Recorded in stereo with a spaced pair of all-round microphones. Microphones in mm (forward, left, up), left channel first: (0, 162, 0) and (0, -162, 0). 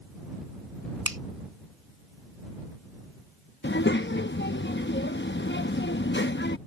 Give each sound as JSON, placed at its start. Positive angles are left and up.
{"t": 1.1, "sound": "a finger snap", "side_deg": -85}
{"t": 3.6, "sound": "a child speaking", "side_deg": 35}